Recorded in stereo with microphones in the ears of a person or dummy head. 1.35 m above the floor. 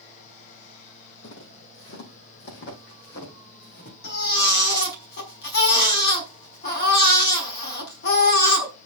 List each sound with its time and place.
1.2 s footsteps: 60° left (ahead or behind), 3.5 m; by 3.9 s 50° left (ahead or behind), 4.5 m
4.0 s a baby crying: 55° left (ahead or behind), 5.5 m